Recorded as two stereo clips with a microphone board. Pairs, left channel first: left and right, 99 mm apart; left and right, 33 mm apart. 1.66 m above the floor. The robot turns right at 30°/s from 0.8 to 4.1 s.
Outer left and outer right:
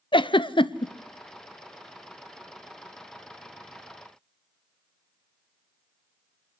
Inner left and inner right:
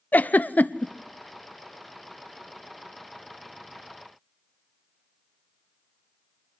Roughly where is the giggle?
Left.